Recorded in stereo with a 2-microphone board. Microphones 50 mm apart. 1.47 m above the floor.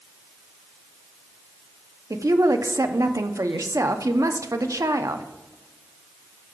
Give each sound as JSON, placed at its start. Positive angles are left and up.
{"t": 2.1, "sound": "a woman speaking", "side_deg": -85, "distance_m": 0.7}